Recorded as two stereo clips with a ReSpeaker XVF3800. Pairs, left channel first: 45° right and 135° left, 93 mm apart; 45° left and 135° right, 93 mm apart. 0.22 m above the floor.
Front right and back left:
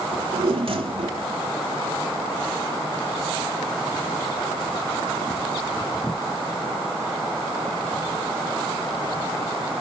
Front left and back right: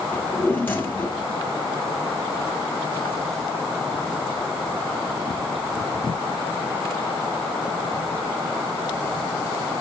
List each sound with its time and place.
0.1 s a drawer: 115° left, 2 m